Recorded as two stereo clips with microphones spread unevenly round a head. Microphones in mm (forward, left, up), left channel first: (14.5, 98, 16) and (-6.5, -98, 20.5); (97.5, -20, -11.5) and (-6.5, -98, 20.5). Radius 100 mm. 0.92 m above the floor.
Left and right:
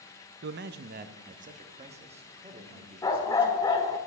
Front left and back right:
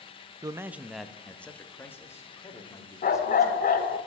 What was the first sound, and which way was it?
A man speaking, 75° right.